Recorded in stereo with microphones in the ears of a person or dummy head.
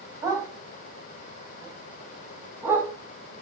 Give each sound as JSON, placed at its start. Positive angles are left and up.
{"t": 0.2, "sound": "a dog barking", "side_deg": -20, "distance_m": 4.0}